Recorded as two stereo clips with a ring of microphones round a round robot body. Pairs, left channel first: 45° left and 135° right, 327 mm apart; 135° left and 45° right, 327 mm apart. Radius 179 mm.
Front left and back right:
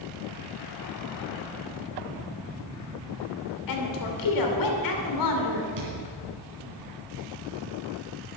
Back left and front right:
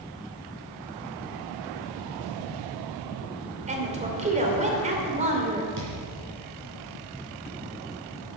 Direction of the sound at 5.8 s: 100° right.